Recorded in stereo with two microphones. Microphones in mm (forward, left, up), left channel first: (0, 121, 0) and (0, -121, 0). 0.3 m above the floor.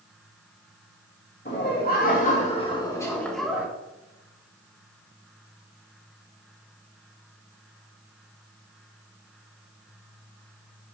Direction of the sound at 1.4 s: 45° left (ahead or behind).